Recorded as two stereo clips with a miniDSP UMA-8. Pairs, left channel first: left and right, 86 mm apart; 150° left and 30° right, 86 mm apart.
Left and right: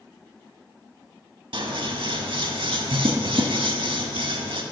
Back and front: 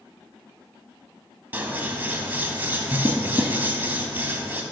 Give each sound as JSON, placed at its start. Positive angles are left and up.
{"t": 1.5, "sound": "scissors", "azimuth_deg": -100, "distance_m": 0.6}